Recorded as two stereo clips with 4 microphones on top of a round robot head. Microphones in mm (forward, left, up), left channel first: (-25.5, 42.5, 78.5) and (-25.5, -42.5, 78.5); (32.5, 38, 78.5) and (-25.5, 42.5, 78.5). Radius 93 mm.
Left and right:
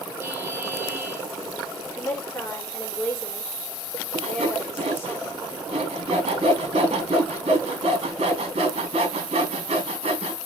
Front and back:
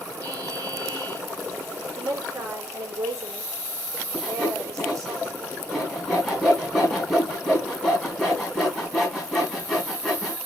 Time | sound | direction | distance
0.2 | a buzzer | 155° right | 3 m
1.9 | a woman speaking | 160° left | 4 m
4.1 | sawing | 95° right | 3.5 m